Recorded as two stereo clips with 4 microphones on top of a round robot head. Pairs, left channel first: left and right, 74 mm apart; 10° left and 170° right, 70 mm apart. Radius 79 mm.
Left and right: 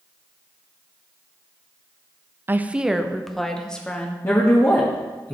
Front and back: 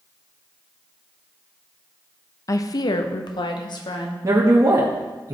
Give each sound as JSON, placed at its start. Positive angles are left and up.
{"t": 2.5, "sound": "a woman speaking", "azimuth_deg": -30, "distance_m": 0.7}
{"t": 4.2, "sound": "a man speaking", "azimuth_deg": 150, "distance_m": 1.6}